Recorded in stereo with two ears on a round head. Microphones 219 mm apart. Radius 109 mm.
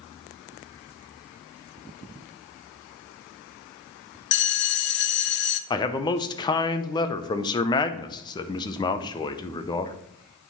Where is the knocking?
No knocking in this recording.